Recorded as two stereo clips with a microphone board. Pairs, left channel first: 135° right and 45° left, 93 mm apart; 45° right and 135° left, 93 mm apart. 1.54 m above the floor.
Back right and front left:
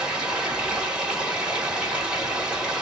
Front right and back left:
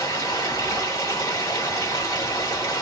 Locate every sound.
0.0 s running water: 25° right, 1.5 m